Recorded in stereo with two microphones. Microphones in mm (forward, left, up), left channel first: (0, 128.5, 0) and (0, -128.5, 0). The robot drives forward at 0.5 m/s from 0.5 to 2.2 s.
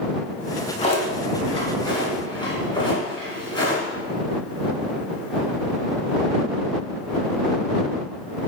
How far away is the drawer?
About 1.0 m.